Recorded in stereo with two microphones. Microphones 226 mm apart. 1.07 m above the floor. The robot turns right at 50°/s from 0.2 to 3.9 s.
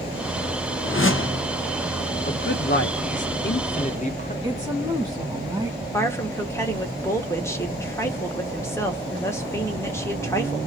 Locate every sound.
0.8 s a whoosh: 75° left, 0.6 m; by 1.5 s 105° left, 0.6 m
2.2 s a man speaking: 55° left, 0.9 m; by 4.3 s 140° left, 0.9 m
4.4 s a woman speaking: 20° right (ahead or behind), 1.7 m
5.9 s a woman speaking: 10° left (ahead or behind), 1.0 m